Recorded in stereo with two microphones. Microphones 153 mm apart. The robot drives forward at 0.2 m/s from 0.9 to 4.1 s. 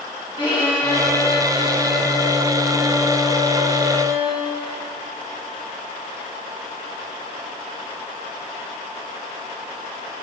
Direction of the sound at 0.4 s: 35° left (ahead or behind).